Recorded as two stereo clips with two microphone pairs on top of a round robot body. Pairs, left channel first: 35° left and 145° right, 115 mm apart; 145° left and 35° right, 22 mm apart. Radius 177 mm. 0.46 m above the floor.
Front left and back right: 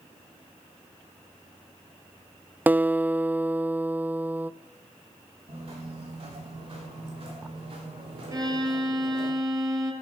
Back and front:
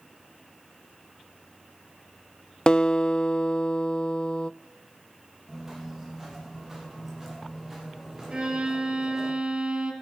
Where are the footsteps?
110° right, 9.5 m; by 9.3 s 105° right, 12.5 m.